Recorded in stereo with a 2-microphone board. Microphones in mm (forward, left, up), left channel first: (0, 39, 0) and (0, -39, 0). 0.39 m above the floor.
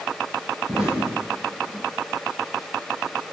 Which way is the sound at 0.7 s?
5° right (ahead or behind).